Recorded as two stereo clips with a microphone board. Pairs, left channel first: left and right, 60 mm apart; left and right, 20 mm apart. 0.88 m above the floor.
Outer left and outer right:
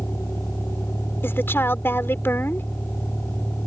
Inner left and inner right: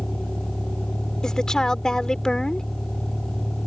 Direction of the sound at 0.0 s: 40° left (ahead or behind).